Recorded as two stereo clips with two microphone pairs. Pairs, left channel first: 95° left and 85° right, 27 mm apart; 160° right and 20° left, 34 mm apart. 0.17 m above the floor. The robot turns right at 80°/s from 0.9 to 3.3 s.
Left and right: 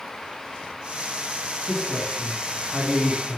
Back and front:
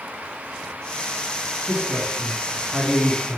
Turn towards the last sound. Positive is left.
turn(degrees=115)